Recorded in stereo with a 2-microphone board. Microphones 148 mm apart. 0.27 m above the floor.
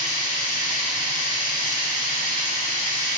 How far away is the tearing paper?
No tearing paper in this recording.